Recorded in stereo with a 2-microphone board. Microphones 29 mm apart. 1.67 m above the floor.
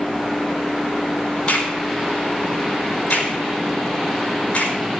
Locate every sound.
1.5 s a crack: 45° left (ahead or behind), 4.5 m